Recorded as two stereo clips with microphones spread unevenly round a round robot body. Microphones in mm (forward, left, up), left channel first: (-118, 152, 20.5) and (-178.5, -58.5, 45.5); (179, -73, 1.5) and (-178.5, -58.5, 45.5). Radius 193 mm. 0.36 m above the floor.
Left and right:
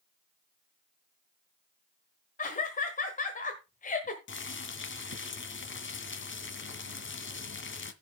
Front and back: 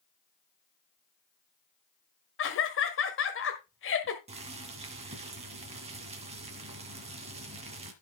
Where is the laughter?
35° left, 1.3 m.